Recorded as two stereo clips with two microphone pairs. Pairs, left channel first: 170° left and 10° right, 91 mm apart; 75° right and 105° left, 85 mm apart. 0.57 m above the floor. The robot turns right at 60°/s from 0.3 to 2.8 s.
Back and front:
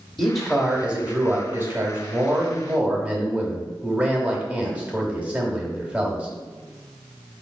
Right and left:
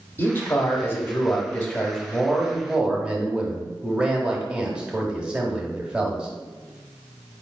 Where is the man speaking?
105° right, 1.0 m; by 6.3 s 45° left, 1.0 m.